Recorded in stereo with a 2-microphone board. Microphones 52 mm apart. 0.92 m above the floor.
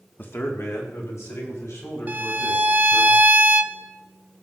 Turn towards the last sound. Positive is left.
turn(degrees=-30)  # may be behind; listen again after turning